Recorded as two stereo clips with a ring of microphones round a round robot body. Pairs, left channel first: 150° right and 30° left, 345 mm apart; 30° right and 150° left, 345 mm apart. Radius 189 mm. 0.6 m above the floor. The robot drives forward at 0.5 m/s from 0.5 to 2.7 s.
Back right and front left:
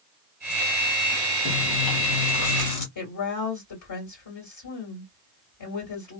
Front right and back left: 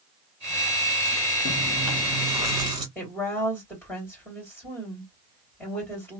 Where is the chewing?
110° right, 1.4 m; by 2.9 s 130° right, 1.7 m.